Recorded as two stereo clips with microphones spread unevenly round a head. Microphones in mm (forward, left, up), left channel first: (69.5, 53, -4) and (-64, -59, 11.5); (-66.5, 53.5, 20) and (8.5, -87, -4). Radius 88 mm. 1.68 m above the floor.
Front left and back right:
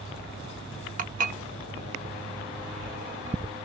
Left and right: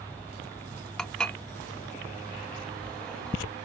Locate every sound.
1.0 s dishes clattering: 165° right